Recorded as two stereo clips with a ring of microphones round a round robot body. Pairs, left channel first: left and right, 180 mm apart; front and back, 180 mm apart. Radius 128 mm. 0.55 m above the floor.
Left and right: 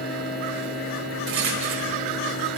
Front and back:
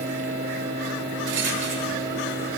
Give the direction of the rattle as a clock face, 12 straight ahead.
5 o'clock.